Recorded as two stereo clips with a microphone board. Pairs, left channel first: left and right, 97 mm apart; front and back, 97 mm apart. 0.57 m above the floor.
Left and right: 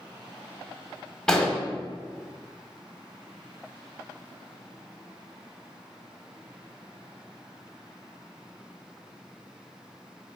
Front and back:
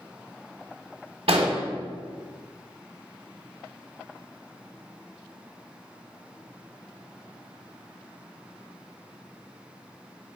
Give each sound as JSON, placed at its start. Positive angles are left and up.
{"t": 1.3, "sound": "an explosion", "azimuth_deg": 170, "distance_m": 0.8}